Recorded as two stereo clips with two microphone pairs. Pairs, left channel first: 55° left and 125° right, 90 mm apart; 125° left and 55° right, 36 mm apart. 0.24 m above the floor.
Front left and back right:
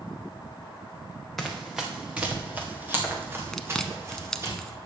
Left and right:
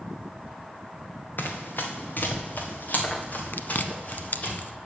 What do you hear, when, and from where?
1.4 s running footsteps: 140° left, 1.7 m; by 4.5 s 175° left, 3.5 m
3.5 s chewing: 135° left, 0.5 m